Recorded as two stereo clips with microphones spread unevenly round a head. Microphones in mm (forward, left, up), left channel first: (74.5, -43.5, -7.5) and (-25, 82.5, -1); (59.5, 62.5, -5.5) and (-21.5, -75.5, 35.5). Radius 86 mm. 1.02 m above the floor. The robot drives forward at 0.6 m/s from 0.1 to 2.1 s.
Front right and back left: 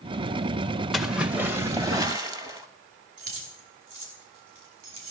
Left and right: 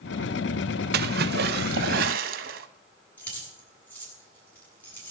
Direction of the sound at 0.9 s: 140° right.